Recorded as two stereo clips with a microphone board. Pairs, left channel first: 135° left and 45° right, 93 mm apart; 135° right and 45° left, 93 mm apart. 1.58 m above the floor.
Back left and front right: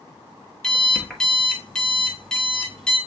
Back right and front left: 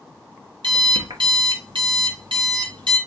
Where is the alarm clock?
55° left, 1.3 m.